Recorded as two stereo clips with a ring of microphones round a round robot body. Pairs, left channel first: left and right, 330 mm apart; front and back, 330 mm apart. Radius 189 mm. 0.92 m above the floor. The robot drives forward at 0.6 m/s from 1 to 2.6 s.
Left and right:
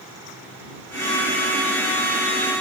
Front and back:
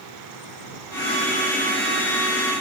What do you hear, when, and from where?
Only background noise.